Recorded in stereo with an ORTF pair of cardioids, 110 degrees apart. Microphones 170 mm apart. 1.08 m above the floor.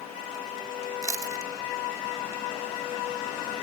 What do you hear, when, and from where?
1.0 s chewing: 20° right, 1.0 m